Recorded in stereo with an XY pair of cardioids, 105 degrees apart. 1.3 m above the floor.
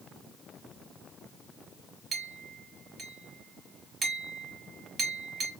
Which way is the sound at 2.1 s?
55° right.